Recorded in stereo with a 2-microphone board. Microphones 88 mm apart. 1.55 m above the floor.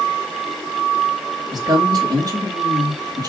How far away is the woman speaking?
About 3.5 m.